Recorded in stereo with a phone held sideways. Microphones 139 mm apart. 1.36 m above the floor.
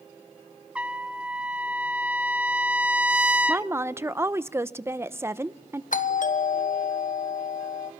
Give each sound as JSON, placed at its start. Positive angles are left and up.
{"t": 0.8, "sound": "a trumpet", "side_deg": -10, "distance_m": 0.9}
{"t": 3.5, "sound": "a woman speaking", "side_deg": -20, "distance_m": 0.8}
{"t": 5.9, "sound": "a doorbell", "side_deg": 65, "distance_m": 1.5}